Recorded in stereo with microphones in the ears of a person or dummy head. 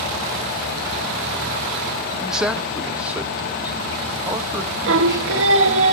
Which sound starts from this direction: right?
Singing, at 4.9 s.